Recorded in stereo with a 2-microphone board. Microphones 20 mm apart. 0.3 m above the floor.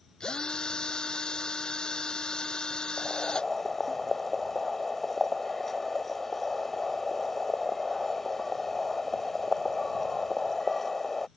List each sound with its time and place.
0.2 s a drill: 50° left (ahead or behind)
3.0 s boiling: 15° left (ahead or behind)